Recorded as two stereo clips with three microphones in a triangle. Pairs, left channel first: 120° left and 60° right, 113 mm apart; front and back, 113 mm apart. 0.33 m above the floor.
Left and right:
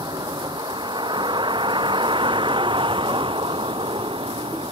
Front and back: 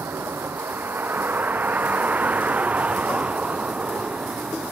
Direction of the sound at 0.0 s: 110° right.